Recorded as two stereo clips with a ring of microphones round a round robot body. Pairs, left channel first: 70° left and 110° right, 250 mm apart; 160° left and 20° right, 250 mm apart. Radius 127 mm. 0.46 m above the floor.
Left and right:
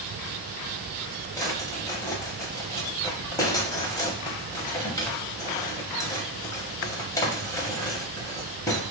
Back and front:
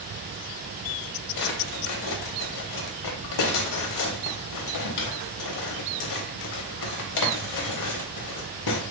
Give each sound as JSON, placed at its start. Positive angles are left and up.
{"t": 1.4, "sound": "a drawer", "azimuth_deg": 145, "distance_m": 0.7}